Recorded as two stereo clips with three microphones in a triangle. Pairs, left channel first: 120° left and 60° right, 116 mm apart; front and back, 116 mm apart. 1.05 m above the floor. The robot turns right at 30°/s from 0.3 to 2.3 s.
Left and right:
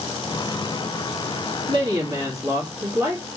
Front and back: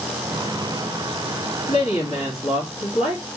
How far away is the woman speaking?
About 1.6 m.